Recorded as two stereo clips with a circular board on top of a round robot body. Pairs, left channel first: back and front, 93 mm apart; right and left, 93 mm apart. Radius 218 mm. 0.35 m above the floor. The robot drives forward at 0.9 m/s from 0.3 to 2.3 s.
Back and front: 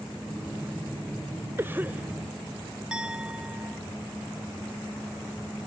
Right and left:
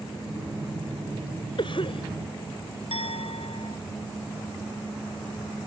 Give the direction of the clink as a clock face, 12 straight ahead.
3 o'clock.